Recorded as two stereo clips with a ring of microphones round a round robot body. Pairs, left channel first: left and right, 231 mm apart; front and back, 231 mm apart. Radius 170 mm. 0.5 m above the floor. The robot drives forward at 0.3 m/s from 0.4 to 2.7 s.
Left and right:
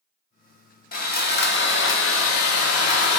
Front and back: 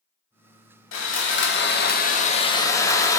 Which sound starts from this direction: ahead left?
Sawing, at 0.9 s.